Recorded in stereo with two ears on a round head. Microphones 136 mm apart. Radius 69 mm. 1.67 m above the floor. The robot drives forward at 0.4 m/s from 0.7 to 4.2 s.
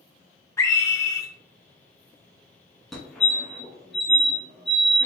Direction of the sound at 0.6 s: 20° left (ahead or behind).